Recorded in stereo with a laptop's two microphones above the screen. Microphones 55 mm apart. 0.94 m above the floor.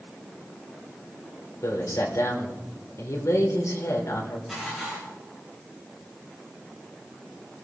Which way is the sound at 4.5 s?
Centre (ahead or behind).